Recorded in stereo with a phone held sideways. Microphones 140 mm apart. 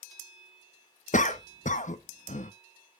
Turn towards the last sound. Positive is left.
turn(degrees=65)  # may be behind; listen again after turning